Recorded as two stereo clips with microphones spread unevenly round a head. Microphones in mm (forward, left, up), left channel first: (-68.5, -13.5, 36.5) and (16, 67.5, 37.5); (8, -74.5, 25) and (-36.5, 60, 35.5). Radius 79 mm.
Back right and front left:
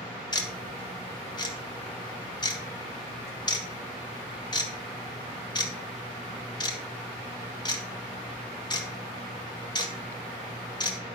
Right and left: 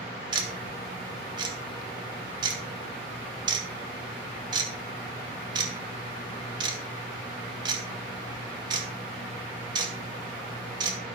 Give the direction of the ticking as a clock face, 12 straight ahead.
6 o'clock.